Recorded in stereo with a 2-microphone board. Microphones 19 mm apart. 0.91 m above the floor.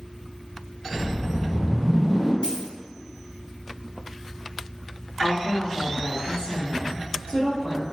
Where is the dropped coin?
70° left (ahead or behind), 1.8 m.